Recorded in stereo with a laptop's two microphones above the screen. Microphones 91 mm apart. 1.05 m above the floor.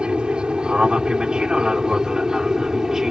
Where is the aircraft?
10° right (ahead or behind); by 3.1 s 5° right (ahead or behind).